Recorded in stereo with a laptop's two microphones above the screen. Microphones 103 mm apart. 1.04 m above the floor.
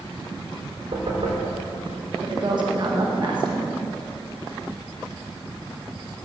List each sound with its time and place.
0.9 s knocking: 65° right (ahead or behind), 3.5 m
2.2 s a woman speaking: 50° right (ahead or behind), 1.2 m